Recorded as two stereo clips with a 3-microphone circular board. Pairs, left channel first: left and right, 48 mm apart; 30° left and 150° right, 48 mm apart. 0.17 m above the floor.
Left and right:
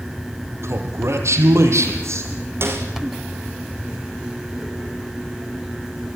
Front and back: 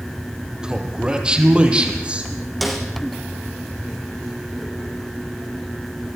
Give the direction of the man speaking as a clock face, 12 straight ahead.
3 o'clock.